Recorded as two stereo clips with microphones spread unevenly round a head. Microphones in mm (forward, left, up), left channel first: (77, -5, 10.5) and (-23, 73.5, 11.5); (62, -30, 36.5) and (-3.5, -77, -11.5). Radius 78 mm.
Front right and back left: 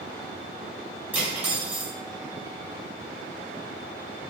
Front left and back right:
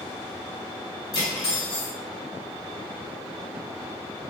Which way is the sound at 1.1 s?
65° left.